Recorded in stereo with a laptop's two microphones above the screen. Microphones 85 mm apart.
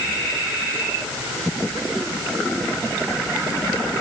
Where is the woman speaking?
I don't hear a woman speaking.